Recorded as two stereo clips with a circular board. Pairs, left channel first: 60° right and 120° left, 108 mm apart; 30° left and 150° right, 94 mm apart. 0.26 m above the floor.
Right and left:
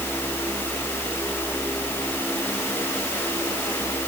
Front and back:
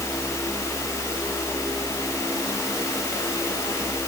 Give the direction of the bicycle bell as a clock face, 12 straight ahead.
I don't hear a bicycle bell.